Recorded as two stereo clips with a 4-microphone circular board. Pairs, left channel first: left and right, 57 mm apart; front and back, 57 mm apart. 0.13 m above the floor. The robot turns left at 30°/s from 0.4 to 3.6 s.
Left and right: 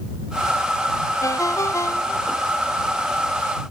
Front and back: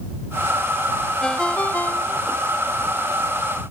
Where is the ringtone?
80° left; by 2.4 s 40° left.